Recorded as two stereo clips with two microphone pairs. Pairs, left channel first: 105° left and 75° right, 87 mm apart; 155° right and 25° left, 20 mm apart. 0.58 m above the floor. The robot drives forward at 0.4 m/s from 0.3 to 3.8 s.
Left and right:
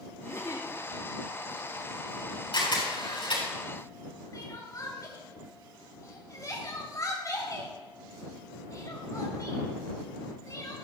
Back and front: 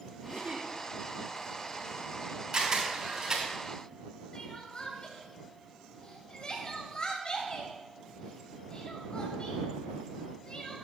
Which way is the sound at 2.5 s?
80° left.